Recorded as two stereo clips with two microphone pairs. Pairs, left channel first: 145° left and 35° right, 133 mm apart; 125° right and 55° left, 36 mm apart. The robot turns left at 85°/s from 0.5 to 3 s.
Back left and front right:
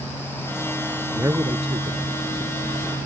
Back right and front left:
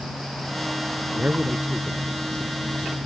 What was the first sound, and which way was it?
A man speaking, 40° left.